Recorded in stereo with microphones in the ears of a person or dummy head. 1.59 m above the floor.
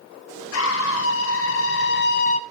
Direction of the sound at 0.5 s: 75° left (ahead or behind).